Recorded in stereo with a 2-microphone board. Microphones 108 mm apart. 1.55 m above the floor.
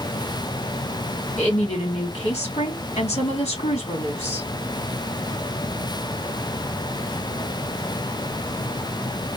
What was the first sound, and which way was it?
A woman speaking, 80° left.